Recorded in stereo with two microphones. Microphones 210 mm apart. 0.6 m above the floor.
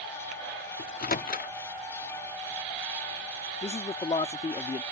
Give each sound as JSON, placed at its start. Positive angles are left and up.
{"t": 0.8, "sound": "a microwave", "side_deg": 45}
{"t": 3.6, "sound": "a man speaking", "side_deg": 30}